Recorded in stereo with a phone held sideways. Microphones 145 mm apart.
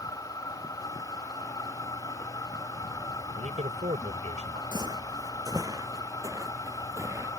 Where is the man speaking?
55° right (ahead or behind).